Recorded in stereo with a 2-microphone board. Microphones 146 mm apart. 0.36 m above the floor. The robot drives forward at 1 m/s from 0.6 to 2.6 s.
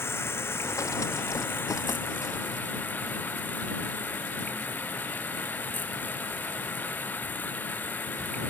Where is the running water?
15° left (ahead or behind); by 8.5 s 10° left (ahead or behind).